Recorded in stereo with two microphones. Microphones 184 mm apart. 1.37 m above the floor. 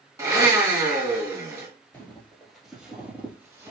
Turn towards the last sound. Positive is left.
turn(degrees=-20)  # may be behind; listen again after turning